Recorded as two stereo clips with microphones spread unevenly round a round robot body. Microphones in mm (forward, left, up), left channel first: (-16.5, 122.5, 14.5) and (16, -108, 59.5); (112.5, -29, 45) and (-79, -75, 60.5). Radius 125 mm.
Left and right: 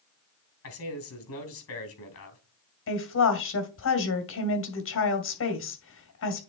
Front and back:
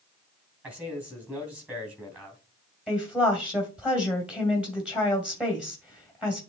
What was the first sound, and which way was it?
A man speaking, 110° left.